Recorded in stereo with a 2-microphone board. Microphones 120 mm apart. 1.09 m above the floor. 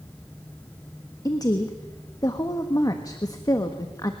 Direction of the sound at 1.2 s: 30° left (ahead or behind).